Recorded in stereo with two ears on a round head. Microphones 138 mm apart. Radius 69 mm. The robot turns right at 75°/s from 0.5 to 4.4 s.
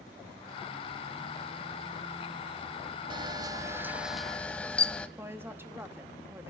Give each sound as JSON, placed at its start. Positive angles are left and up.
{"t": 3.1, "sound": "a camera shutter", "azimuth_deg": -80, "distance_m": 0.6}
{"t": 5.2, "sound": "a woman speaking", "side_deg": -15, "distance_m": 0.9}